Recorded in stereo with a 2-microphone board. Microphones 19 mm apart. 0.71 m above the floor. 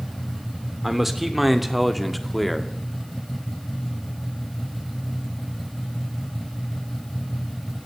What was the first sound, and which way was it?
A man speaking, 10° right (ahead or behind).